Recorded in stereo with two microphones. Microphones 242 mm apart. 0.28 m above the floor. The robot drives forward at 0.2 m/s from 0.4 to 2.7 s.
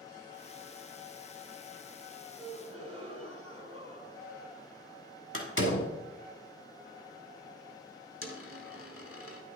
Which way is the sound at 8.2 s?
65° left (ahead or behind).